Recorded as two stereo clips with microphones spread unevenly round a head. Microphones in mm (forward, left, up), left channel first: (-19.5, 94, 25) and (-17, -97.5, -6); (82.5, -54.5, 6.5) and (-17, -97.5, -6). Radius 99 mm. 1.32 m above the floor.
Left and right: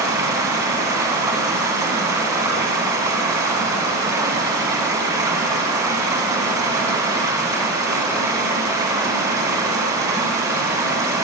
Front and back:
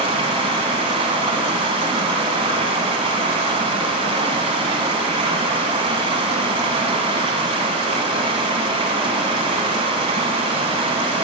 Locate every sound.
0.0 s running water: 165° right, 1.6 m